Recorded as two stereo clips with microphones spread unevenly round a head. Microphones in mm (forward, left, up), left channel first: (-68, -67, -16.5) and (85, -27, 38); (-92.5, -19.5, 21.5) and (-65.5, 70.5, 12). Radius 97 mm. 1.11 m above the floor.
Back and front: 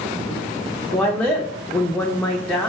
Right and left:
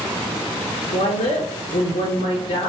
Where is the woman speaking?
85° right, 0.6 m.